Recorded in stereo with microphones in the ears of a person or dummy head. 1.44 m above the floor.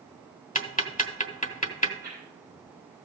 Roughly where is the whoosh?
Centre.